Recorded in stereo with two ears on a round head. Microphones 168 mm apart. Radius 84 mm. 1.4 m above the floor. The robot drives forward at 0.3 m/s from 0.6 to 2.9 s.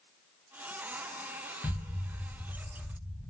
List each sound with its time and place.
1.6 s an explosion: 10° left (ahead or behind), 0.6 m